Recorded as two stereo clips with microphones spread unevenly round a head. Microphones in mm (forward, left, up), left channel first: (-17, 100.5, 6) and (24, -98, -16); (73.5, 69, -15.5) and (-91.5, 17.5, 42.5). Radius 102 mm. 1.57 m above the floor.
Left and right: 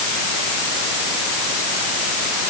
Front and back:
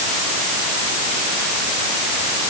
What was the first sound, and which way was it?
Only background noise.